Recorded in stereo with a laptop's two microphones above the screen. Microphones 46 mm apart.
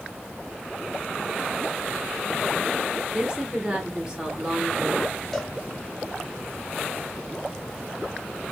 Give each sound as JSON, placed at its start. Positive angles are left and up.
{"t": 3.1, "sound": "a woman speaking", "side_deg": -15, "distance_m": 1.0}
{"t": 5.3, "sound": "a cowbell", "side_deg": 5, "distance_m": 0.7}